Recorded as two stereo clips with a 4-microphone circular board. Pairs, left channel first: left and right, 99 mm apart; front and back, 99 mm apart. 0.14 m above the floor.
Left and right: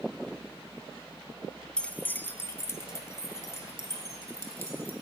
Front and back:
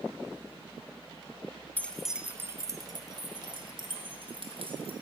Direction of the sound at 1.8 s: 30° left.